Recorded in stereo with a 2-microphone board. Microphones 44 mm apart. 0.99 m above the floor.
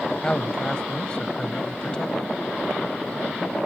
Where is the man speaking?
20° left (ahead or behind).